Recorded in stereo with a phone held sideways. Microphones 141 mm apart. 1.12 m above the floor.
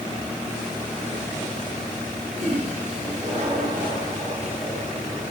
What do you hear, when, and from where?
2.4 s a toilet flushing: 55° right (ahead or behind), 9.5 m